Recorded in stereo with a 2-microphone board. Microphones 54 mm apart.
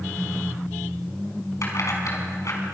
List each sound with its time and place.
1.6 s keys jangling: 70° left (ahead or behind), 5.5 m